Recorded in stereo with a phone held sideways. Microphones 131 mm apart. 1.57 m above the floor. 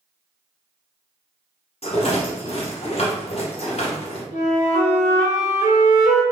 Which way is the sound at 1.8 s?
55° left (ahead or behind).